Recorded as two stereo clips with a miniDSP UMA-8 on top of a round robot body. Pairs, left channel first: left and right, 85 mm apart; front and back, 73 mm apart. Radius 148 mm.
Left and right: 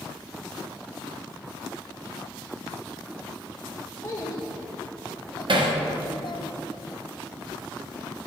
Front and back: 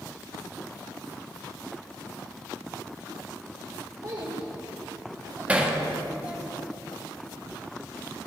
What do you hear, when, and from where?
4.0 s a child speaking: 140° left, 2 m; by 6.5 s 95° left, 0.7 m
5.5 s hammering: 110° right, 1.3 m